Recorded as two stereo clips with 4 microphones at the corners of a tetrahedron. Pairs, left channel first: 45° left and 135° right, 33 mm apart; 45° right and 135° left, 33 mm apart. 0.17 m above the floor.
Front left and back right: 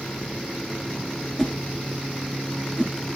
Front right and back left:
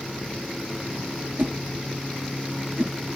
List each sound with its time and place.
1.4 s a whoosh: 125° left, 1.3 m